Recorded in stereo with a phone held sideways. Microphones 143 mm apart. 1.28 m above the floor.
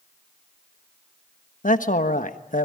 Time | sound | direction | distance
1.6 | a man speaking | 65° left (ahead or behind) | 1.3 m